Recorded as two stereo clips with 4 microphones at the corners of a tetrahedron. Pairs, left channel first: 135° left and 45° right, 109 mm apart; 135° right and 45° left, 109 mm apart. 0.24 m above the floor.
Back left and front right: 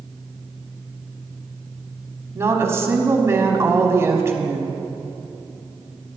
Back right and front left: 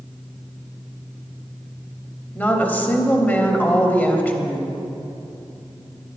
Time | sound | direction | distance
2.4 | a woman speaking | 75° right | 1.1 m